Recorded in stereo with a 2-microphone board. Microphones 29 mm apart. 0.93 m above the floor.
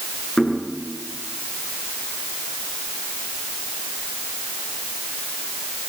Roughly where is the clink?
I don't hear a clink.